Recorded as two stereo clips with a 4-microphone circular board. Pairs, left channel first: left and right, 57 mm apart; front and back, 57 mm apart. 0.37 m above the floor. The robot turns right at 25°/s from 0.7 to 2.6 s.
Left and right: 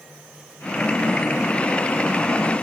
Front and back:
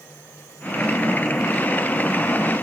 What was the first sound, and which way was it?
Only background noise.